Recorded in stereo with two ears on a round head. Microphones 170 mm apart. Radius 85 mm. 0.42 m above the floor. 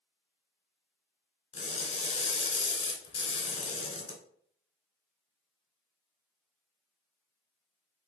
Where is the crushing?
30° left (ahead or behind), 1.6 m.